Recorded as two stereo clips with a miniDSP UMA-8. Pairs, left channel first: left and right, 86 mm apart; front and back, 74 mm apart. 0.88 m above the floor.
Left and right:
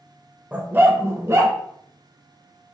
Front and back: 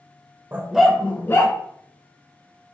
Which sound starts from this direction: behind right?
A dog barking, at 0.5 s.